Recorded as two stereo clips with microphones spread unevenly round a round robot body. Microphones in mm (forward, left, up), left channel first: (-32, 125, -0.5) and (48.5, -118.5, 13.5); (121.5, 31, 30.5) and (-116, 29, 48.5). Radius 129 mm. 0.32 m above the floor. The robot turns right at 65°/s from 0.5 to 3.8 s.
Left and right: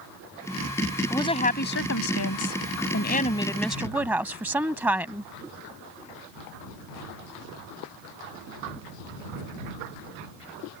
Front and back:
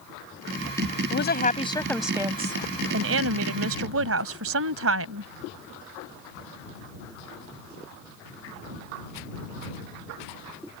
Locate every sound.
1.1 s a woman speaking: 30° left; by 5.3 s 155° right